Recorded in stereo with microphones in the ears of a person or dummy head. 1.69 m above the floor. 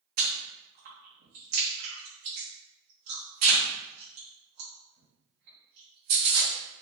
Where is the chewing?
45° right (ahead or behind), 1.3 m.